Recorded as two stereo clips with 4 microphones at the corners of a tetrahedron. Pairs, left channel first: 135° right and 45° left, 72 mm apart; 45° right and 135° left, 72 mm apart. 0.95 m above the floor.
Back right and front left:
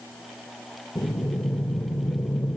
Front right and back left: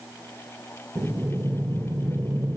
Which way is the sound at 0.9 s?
175° right.